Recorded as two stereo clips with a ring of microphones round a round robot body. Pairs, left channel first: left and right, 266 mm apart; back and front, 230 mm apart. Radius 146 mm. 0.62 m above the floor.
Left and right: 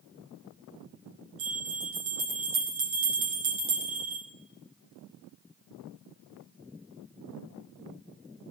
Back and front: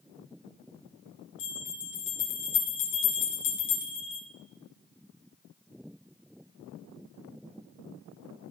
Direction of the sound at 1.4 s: 130° right.